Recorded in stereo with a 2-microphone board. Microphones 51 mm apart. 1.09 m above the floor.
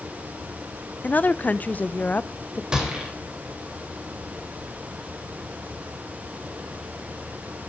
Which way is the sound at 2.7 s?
15° right (ahead or behind).